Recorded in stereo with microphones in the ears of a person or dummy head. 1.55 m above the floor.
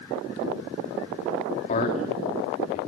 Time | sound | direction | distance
1.7 | a man speaking | 45° left (ahead or behind) | 3 m